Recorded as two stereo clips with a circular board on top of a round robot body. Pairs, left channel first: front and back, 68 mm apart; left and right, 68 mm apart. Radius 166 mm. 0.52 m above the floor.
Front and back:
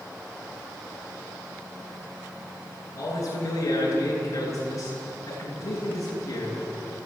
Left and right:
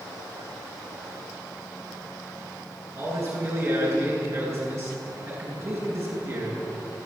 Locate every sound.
3.0 s a man speaking: 45° right, 9.5 m